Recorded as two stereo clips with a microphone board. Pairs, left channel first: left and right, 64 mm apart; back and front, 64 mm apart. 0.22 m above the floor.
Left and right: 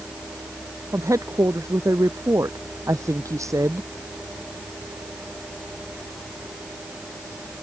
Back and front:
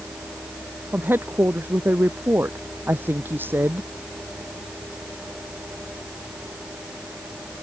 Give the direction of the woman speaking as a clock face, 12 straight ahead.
2 o'clock.